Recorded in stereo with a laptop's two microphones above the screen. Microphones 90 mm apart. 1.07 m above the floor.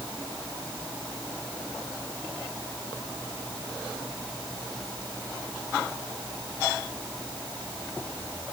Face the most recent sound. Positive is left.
No sound to turn to.